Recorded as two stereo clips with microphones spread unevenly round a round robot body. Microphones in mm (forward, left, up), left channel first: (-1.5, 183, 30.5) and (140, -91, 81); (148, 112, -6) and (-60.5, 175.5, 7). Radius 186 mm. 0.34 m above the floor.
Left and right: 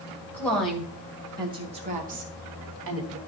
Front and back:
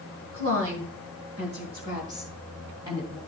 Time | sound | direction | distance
0.3 | a woman speaking | 165° right | 2.5 m